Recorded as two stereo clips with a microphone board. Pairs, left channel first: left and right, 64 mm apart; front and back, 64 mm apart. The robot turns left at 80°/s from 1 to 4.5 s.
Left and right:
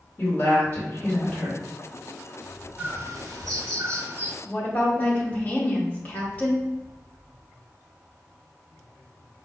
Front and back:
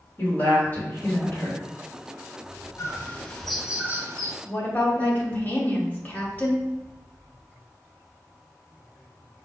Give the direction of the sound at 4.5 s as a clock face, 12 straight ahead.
10 o'clock.